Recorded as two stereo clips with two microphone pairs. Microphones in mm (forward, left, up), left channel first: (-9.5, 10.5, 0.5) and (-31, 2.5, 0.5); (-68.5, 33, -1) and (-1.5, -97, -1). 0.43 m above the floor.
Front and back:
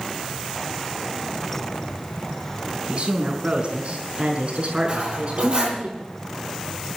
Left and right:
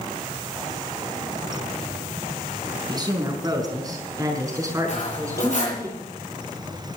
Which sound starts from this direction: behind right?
A woman speaking, at 2.9 s.